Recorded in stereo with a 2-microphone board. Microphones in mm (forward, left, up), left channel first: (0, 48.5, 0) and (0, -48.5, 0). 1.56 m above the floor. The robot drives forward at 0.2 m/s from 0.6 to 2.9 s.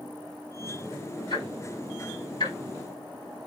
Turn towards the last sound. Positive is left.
turn(degrees=55)  # may be behind; listen again after turning